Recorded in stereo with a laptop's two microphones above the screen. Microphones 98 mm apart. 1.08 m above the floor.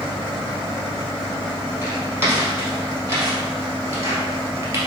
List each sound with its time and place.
1.8 s footsteps: 25° right (ahead or behind), 1.7 m; by 4.8 s 30° right (ahead or behind), 1.2 m